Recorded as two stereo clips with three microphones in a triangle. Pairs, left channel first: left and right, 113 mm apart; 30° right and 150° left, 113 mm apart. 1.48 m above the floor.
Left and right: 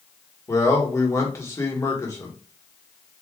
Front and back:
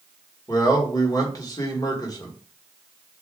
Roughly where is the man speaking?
Ahead left.